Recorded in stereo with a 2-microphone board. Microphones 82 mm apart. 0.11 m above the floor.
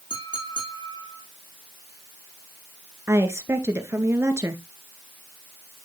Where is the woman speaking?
30° right (ahead or behind), 1.6 m.